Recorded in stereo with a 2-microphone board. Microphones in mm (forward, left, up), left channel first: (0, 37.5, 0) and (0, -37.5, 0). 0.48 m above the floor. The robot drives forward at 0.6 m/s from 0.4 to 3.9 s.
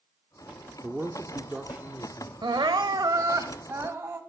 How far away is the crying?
About 0.6 m.